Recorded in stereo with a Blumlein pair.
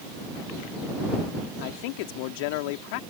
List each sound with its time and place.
1.6 s a man speaking: 45° left